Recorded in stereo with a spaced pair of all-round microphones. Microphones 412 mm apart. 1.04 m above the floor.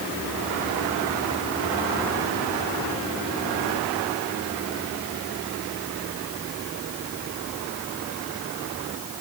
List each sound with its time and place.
Only background noise.